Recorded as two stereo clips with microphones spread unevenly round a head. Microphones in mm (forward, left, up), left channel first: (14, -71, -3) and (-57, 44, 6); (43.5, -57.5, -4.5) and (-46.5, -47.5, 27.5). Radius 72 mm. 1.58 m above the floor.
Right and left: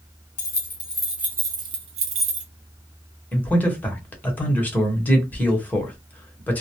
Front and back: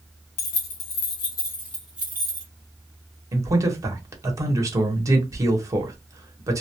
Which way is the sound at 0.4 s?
10° left.